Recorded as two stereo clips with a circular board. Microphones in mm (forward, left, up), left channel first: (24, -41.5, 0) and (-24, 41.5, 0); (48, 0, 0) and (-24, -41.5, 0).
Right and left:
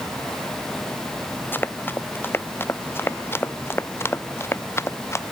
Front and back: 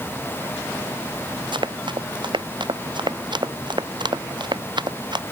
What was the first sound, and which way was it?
Running footsteps, 130° right.